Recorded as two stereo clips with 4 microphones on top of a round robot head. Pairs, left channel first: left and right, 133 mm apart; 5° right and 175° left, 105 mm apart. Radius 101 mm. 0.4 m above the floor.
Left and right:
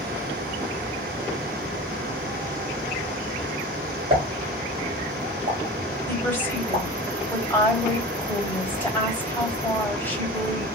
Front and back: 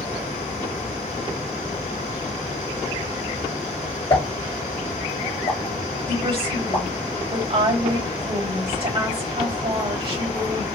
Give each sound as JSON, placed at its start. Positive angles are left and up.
{"t": 4.1, "sound": "a pop", "azimuth_deg": -45, "distance_m": 1.8}
{"t": 6.1, "sound": "a woman speaking", "azimuth_deg": 160, "distance_m": 2.5}